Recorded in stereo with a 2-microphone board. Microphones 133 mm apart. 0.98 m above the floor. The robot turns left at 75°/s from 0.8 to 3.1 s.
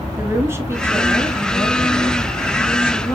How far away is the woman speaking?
About 1.2 m.